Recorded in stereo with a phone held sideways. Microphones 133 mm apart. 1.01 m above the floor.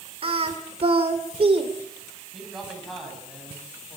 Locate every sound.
0.2 s singing: 50° right (ahead or behind), 2.5 m
2.3 s a man speaking: centre (ahead or behind), 9 m